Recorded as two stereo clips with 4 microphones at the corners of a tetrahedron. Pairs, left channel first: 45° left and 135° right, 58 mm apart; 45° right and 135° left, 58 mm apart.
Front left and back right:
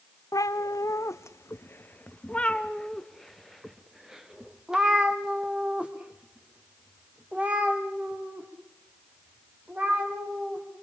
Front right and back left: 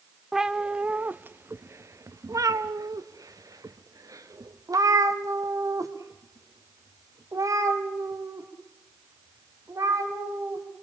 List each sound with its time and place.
0.3 s a cat meowing: 50° left, 1.2 m; by 10.6 s 165° left, 5.5 m